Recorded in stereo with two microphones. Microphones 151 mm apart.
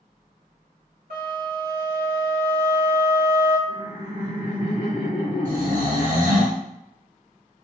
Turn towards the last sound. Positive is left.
turn(degrees=-60)  # may be behind; listen again after turning